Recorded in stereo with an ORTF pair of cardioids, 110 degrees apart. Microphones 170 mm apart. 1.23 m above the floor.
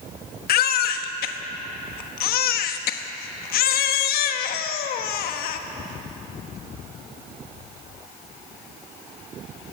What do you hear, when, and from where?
0.5 s a baby crying: 65° left, 1.2 m